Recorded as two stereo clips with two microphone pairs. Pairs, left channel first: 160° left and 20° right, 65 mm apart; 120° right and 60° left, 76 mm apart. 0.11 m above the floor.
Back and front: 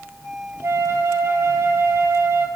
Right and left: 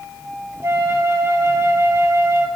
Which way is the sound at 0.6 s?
15° left.